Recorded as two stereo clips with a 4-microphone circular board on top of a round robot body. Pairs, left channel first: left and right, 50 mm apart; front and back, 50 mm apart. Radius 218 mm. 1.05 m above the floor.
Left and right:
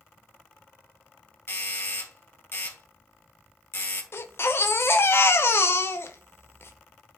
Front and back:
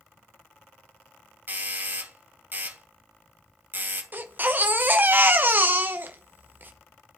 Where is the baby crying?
125° left, 0.9 m.